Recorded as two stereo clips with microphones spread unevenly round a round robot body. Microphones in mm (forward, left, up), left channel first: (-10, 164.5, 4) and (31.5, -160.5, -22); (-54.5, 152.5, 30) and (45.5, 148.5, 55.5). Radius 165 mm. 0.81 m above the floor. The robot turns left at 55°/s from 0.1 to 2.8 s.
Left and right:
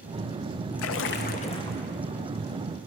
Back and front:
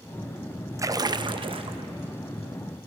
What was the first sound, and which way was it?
A splash, 65° left.